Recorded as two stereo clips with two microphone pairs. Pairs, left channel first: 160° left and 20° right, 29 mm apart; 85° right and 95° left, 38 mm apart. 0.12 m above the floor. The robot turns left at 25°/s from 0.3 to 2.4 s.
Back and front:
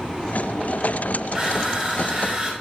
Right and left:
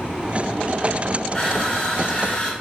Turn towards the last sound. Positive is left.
turn(degrees=-60)